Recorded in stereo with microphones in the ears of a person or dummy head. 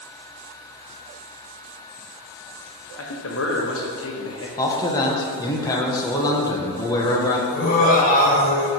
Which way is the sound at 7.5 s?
45° left (ahead or behind).